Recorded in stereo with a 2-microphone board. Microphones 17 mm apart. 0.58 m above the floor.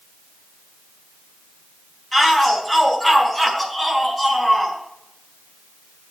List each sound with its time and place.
2.1 s a shout: 20° left (ahead or behind), 4.5 m; by 4.8 s 10° left (ahead or behind), 5.5 m